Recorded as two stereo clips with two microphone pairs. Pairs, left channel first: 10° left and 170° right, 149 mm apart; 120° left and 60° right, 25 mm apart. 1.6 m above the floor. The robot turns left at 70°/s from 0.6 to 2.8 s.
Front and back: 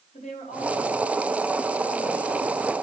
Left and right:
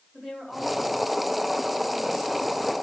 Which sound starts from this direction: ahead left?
A woman speaking, at 0.1 s.